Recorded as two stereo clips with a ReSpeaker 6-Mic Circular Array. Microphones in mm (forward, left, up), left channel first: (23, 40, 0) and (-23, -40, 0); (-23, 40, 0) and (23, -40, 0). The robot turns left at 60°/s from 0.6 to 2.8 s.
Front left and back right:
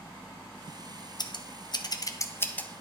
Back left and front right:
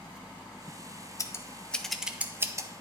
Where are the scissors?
75° left, 0.6 m; by 2.7 s 15° right, 0.6 m.